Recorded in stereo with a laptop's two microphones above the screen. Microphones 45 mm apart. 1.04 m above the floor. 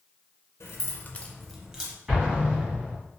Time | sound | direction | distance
0.6 | keys jangling | 80° left | 0.7 m
2.1 | an explosion | 20° right (ahead or behind) | 1.2 m